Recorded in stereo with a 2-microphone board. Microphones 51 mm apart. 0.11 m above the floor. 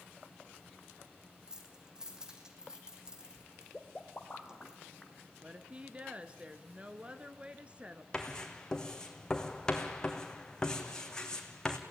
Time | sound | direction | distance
1.5 | keys jangling | 15° right (ahead or behind) | 3.5 m
3.7 | a pop | 10° left (ahead or behind) | 1.9 m
5.4 | a woman speaking | 25° right (ahead or behind) | 1.4 m
8.1 | writing | 15° left (ahead or behind) | 2.5 m